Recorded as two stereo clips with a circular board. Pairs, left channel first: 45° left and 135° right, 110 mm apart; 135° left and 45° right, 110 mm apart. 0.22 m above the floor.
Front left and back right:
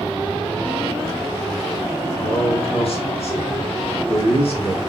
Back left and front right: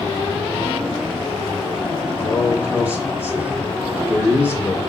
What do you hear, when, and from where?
2.2 s a man speaking: 30° left, 4 m